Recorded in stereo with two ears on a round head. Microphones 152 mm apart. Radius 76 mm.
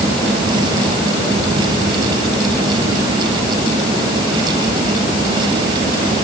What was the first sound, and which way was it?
Only background noise.